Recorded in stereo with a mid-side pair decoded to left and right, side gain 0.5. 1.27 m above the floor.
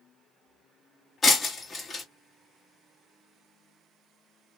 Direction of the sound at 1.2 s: 30° left.